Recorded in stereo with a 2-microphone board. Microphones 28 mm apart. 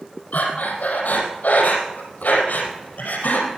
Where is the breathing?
65° left (ahead or behind), 4 m.